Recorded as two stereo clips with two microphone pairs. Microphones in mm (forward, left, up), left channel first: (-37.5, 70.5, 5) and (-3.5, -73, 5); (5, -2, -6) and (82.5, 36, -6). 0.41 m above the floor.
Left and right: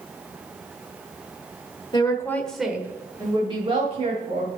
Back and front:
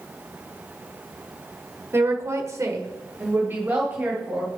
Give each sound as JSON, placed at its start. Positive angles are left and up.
{"t": 1.9, "sound": "a woman speaking", "azimuth_deg": 65, "distance_m": 1.3}